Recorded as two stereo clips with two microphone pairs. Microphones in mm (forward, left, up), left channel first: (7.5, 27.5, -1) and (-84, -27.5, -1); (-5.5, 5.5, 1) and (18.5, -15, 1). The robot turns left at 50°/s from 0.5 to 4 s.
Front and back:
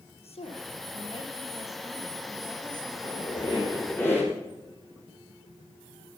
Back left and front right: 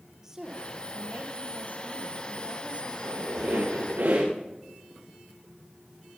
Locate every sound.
0.2 s a woman speaking: 30° left, 4 m; by 3.5 s 115° right, 4 m
2.9 s a squeak: 10° left, 7.5 m; by 4.3 s 45° right, 7.5 m